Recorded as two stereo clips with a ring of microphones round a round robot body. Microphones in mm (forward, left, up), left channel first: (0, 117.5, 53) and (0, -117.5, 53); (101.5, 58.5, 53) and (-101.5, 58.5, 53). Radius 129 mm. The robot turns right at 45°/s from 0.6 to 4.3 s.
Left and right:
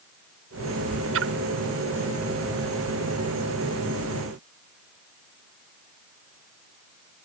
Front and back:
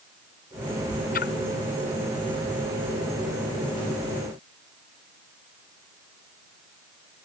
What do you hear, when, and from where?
1.1 s a splash: 55° right; by 1.3 s 50° right